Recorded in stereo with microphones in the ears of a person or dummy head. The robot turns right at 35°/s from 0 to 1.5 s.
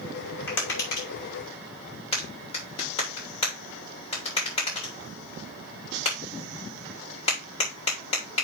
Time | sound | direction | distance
0.5 | tapping | 70° left (ahead or behind) | 3 m